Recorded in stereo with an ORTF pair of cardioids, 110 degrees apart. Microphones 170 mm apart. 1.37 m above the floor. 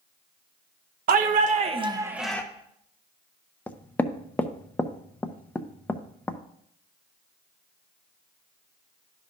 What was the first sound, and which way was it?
A shout, 50° right.